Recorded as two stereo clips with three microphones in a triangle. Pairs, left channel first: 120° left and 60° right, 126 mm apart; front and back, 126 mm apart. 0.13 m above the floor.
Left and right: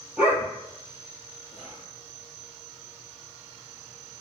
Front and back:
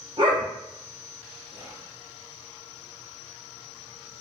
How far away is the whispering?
About 1.1 m.